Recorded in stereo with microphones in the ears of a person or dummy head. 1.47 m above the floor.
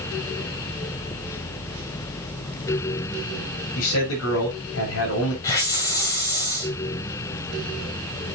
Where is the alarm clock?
No alarm clock in this recording.